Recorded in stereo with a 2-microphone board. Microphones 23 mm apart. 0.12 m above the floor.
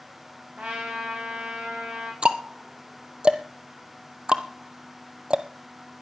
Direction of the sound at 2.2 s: 45° right (ahead or behind).